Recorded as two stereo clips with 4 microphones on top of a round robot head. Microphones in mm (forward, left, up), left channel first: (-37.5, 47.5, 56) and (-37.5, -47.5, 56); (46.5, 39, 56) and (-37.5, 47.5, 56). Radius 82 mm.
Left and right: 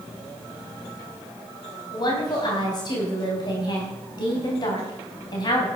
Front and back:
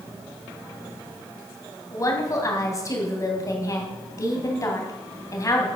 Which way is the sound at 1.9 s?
40° left.